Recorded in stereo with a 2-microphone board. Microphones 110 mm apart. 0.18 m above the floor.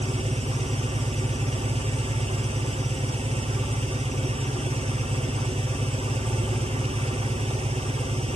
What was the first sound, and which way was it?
An engine running, 75° right (ahead or behind).